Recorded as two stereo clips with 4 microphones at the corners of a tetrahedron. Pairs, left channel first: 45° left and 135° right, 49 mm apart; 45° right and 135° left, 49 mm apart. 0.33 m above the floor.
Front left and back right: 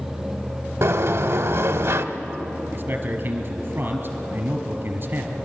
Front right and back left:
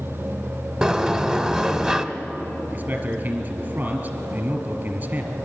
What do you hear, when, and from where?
0.8 s a sliding door: 155° right, 1.0 m
2.7 s a man speaking: straight behind, 3 m